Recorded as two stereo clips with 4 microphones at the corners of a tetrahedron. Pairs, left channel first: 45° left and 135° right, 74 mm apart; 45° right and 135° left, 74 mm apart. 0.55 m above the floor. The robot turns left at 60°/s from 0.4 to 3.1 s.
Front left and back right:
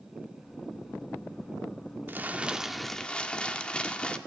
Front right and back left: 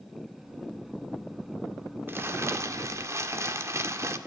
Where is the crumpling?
175° left, 1.6 m; by 4.2 s 115° left, 1.6 m.